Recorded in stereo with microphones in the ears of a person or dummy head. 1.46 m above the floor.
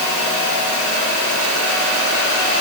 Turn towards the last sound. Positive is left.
No sound to turn to.